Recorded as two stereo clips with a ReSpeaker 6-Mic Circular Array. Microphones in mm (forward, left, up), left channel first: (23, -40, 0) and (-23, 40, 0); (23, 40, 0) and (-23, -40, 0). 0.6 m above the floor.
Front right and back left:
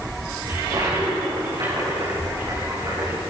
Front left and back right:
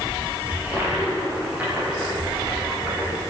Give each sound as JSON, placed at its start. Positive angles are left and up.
{"t": 0.5, "sound": "a toilet flushing", "azimuth_deg": 165, "distance_m": 8.5}